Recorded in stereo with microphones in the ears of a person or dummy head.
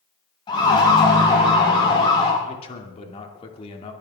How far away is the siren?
About 5.5 m.